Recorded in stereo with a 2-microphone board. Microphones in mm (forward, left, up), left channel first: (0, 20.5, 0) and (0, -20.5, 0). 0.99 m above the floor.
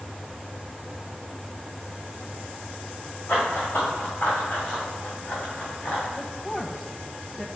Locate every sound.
3.3 s running footsteps: 35° left (ahead or behind), 4.5 m
6.2 s a woman speaking: 10° left (ahead or behind), 0.9 m